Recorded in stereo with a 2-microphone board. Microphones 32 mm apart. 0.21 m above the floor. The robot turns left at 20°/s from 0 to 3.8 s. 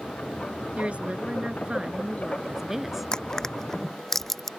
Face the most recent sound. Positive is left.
turn(degrees=10)  # may be behind; listen again after turning